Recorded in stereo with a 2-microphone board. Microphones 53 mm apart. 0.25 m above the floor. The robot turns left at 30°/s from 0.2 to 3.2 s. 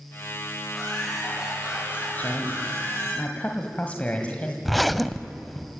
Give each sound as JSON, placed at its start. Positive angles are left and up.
{"t": 0.7, "sound": "laughter", "azimuth_deg": 5, "distance_m": 9.0}
{"t": 2.2, "sound": "a woman speaking", "azimuth_deg": 80, "distance_m": 1.7}
{"t": 4.7, "sound": "a zipper", "side_deg": 0, "distance_m": 0.5}